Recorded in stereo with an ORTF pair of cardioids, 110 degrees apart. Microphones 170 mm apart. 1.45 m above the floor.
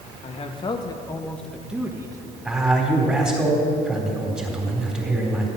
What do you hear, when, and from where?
0.2 s a man speaking: 40° left, 1.8 m; by 2.4 s 25° right, 1.5 m
2.5 s a man speaking: 5° right, 4 m